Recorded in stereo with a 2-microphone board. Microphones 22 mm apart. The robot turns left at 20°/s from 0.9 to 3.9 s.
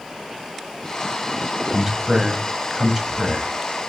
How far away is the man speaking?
About 1.0 m.